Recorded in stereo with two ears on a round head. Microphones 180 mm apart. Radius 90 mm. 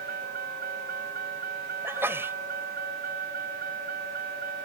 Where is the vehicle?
45° right (ahead or behind).